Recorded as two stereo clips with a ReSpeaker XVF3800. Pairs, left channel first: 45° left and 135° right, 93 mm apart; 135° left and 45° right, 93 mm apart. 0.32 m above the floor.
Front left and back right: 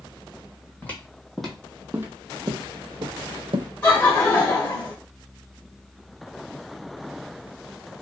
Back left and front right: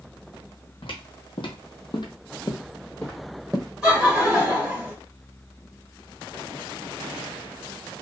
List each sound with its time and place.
0.8 s footsteps: 115° left, 1.0 m; by 3.7 s 135° right, 1.0 m
3.8 s laughter: 15° left, 1.3 m